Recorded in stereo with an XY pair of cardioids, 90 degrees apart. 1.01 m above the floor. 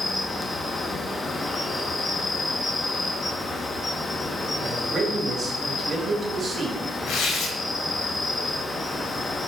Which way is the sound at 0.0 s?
30° left.